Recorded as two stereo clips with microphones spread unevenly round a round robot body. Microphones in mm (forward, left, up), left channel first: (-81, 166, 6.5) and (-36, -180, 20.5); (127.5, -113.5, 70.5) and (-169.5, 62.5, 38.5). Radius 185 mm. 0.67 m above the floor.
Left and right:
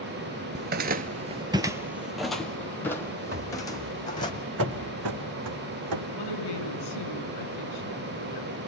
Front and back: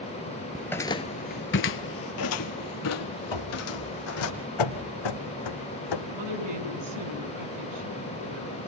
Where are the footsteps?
110° right, 0.7 m; by 4.3 s 20° left, 2 m.